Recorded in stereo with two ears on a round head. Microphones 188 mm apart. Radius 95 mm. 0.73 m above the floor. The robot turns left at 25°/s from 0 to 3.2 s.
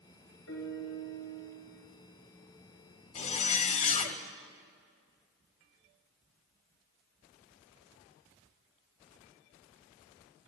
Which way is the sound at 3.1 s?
35° left (ahead or behind).